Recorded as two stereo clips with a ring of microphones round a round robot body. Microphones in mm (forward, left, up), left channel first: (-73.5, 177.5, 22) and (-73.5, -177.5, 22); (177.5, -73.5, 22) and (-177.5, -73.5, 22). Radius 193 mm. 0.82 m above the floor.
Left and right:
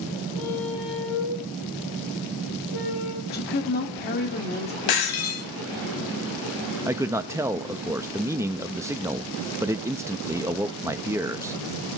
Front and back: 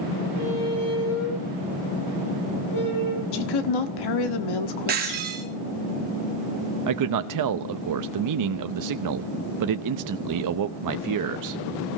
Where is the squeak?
60° left, 7.5 m.